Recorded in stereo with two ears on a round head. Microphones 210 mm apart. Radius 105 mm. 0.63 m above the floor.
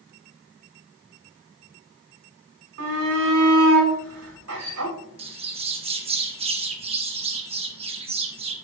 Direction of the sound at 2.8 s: 75° right (ahead or behind).